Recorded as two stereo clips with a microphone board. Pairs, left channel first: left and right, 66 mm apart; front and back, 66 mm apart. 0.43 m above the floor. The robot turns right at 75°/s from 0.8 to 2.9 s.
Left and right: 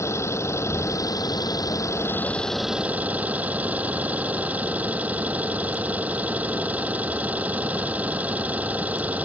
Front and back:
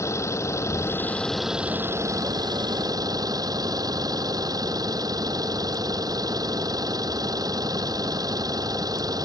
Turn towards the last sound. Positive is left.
turn(degrees=-160)